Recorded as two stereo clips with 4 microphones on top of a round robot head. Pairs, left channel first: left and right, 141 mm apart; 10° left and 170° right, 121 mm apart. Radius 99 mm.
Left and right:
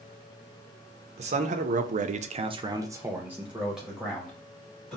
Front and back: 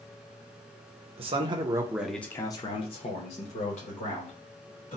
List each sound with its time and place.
1.2 s a man speaking: 130° right, 0.7 m; by 5.0 s 5° left, 1.6 m